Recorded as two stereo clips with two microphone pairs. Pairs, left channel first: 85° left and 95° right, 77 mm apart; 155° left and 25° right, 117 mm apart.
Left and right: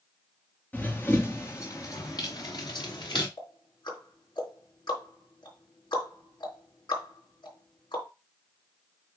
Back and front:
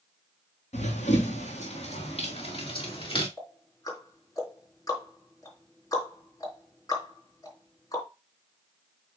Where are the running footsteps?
155° left, 1.9 m; by 3.3 s 105° left, 3 m.